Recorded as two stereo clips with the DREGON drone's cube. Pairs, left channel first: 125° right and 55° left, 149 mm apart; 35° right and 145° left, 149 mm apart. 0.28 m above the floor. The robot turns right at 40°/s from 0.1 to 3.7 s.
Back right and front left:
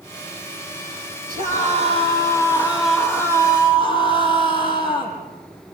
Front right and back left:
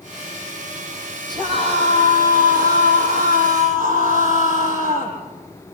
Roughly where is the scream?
Left.